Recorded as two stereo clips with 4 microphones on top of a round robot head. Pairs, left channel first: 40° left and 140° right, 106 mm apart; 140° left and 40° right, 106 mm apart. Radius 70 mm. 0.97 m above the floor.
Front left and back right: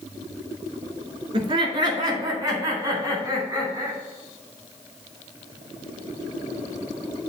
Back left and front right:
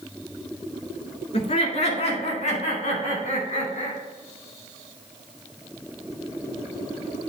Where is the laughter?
170° left, 2.5 m; by 4.0 s 150° left, 5.5 m.